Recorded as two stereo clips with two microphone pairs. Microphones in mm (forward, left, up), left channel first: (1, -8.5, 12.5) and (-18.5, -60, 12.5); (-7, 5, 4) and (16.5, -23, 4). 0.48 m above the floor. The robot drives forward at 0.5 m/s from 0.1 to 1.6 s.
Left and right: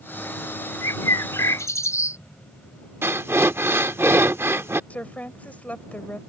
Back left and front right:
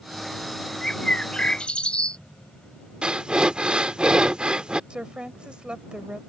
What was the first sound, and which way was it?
A bird, 60° left.